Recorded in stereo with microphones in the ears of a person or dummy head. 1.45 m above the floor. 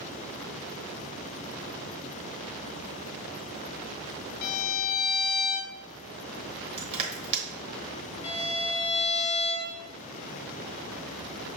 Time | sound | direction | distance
4.4 | a violin | 55° left (ahead or behind) | 0.6 m
6.8 | crushing | 30° right (ahead or behind) | 1.1 m
8.2 | a violin | 25° left (ahead or behind) | 0.6 m